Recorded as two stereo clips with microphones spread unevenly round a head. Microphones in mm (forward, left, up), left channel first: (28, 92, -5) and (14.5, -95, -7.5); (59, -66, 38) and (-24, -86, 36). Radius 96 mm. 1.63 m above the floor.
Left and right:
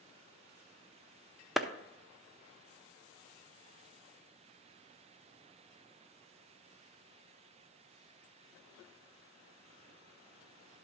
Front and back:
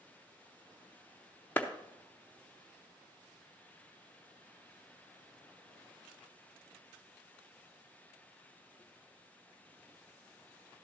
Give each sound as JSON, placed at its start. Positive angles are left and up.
{"t": 1.6, "sound": "a clap", "azimuth_deg": -5, "distance_m": 0.6}